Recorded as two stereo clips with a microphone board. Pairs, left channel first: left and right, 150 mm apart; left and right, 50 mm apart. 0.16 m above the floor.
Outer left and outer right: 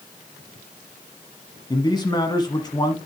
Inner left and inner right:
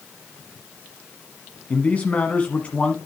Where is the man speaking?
30° left (ahead or behind), 1.1 m.